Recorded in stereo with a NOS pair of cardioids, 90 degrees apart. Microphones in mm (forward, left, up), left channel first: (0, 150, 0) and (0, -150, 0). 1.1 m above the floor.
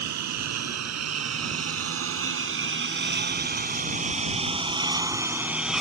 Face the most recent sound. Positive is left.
turn(degrees=0)